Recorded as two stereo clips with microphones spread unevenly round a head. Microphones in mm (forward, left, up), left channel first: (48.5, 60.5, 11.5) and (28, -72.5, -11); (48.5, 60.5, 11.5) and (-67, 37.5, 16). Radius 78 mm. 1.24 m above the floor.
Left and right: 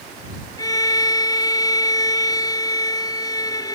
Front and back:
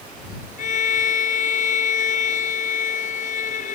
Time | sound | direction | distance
0.6 | a violin | 20° left | ?